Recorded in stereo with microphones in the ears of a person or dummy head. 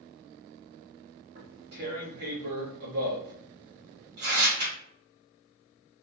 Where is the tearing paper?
50° right (ahead or behind), 1.2 m.